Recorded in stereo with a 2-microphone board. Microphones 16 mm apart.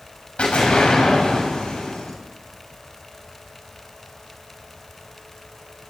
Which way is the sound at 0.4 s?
75° left (ahead or behind).